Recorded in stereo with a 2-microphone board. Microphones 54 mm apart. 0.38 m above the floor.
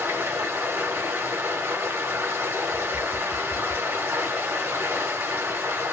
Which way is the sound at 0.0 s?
50° right (ahead or behind).